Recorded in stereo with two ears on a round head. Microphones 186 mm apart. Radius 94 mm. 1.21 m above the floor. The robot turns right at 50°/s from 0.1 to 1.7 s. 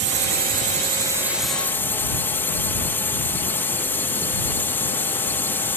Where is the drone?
70° right; by 5.8 s 10° left.